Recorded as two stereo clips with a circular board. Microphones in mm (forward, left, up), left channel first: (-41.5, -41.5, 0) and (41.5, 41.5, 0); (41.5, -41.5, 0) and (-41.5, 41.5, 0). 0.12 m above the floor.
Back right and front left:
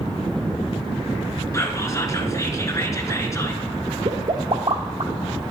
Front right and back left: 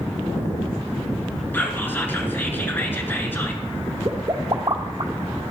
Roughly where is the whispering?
Right.